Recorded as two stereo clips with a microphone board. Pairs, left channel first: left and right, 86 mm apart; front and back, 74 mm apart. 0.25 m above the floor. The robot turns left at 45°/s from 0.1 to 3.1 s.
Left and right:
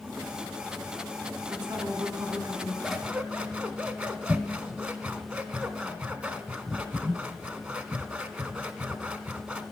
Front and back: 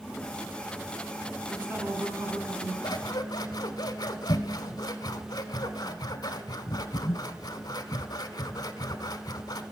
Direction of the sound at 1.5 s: 105° right.